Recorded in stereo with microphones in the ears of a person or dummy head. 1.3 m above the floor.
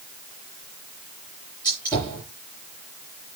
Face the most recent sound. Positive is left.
turn(degrees=20)  # may be behind; listen again after turning